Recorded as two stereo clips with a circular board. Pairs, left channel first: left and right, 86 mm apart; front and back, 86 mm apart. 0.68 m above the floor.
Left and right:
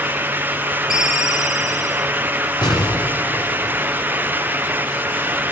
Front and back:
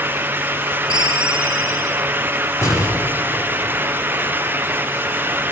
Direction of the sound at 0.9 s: Straight behind.